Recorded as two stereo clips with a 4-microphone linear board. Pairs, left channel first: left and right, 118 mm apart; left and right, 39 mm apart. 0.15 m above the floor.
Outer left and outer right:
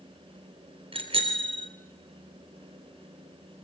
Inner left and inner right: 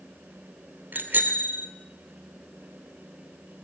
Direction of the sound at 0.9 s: 50° right (ahead or behind).